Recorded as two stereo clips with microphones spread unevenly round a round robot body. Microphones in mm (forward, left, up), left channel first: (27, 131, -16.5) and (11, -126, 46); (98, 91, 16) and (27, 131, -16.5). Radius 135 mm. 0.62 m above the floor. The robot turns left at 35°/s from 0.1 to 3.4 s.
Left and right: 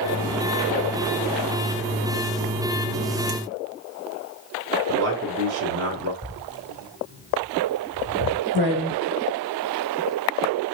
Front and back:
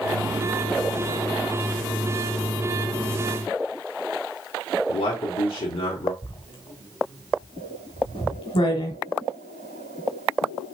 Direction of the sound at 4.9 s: 50° right.